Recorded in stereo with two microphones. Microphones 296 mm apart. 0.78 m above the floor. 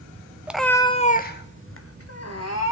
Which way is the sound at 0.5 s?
5° right (ahead or behind).